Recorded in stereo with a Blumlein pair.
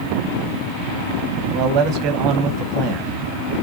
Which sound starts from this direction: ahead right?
A man speaking, at 1.5 s.